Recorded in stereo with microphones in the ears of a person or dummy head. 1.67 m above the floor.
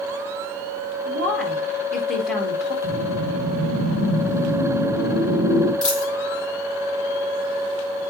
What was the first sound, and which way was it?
A woman speaking, centre (ahead or behind).